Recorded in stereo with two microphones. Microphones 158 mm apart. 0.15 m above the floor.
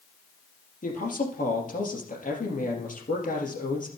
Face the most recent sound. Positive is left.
turn(degrees=55)  # may be behind; listen again after turning